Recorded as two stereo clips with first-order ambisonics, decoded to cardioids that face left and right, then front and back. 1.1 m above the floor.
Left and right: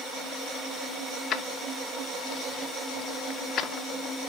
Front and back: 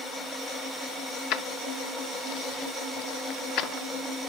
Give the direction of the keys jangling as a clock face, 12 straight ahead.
11 o'clock.